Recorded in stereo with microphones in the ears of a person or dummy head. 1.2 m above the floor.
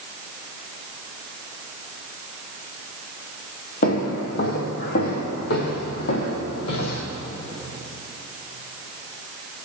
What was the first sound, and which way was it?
Footsteps, 55° left (ahead or behind).